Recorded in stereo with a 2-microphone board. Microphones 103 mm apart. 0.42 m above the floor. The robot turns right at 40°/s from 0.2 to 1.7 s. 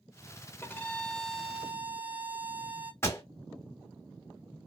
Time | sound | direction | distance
0.6 | a violin | 155° left | 0.5 m
3.0 | a pop | 30° left (ahead or behind) | 1.1 m